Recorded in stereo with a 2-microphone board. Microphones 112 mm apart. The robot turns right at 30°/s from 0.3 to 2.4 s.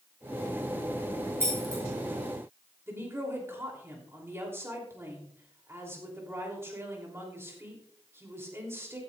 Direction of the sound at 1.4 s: 25° right (ahead or behind).